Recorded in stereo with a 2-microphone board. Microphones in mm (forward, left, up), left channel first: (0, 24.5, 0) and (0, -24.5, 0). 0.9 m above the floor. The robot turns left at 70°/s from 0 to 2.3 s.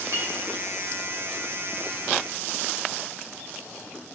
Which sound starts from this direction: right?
A clink, at 0.1 s.